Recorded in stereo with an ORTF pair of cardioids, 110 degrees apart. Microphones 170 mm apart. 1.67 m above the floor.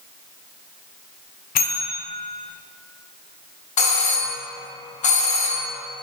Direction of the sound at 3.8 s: 45° left.